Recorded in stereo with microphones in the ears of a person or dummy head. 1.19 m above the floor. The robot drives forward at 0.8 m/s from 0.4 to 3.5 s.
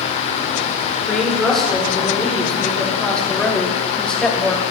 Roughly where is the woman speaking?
Centre.